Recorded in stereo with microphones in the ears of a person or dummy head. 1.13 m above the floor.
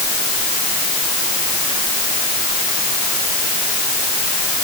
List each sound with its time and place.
Only background noise.